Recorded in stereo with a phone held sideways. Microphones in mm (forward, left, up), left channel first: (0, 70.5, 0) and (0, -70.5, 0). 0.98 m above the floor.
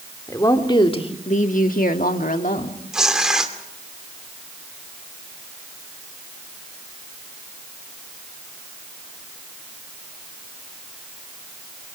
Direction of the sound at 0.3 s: 20° left (ahead or behind).